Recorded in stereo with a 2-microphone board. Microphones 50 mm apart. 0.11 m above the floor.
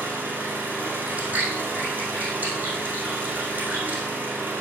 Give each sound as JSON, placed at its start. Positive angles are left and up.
{"t": 0.0, "sound": "an engine running", "side_deg": -40, "distance_m": 2.5}
{"t": 1.1, "sound": "chewing", "side_deg": -35, "distance_m": 3.5}